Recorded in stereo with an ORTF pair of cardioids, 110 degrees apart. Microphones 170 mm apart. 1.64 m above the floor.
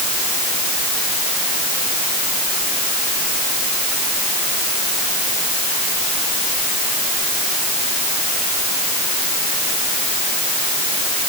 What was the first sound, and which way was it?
Only background noise.